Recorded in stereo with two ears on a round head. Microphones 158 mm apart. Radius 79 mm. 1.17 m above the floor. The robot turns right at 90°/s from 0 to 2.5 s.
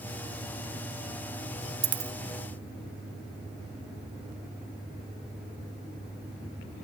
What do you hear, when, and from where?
1.8 s a dropped coin: 30° right (ahead or behind); by 2.1 s 10° right (ahead or behind)